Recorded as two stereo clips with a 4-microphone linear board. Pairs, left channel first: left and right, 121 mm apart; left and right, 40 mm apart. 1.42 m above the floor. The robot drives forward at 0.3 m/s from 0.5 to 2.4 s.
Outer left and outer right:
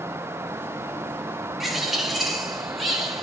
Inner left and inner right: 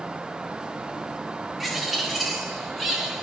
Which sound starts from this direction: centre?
A bird, at 1.6 s.